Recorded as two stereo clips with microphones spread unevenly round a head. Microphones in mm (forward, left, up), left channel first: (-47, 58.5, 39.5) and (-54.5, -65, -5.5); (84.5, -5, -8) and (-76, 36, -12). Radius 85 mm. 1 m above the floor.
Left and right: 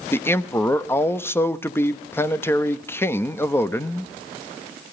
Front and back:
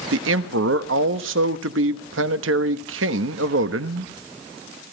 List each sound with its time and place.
0.1 s a man speaking: 165° left, 1.2 m